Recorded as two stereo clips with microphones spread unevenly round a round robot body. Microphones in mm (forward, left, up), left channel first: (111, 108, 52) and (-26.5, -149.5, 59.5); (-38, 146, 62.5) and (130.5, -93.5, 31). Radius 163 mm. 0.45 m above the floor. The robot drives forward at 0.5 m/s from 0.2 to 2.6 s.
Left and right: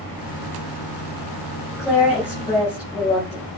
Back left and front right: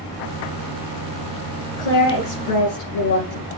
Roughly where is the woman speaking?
Behind left.